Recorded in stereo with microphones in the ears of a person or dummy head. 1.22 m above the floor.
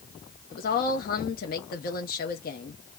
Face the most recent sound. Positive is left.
turn(degrees=45)  # may be behind; listen again after turning